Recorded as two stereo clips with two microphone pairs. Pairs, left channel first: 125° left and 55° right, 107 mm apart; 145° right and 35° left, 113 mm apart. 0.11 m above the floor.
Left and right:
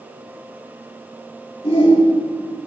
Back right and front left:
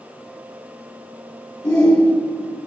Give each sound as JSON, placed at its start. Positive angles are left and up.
{"t": 1.6, "sound": "a shout", "azimuth_deg": 160, "distance_m": 8.0}